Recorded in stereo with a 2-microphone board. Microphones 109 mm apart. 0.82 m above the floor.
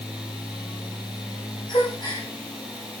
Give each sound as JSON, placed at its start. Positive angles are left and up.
{"t": 1.7, "sound": "a gasp", "side_deg": 45, "distance_m": 3.5}